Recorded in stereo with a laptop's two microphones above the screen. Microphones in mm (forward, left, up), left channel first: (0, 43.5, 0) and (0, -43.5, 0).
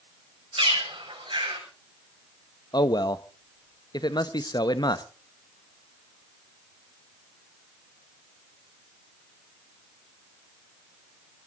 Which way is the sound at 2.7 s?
55° left (ahead or behind).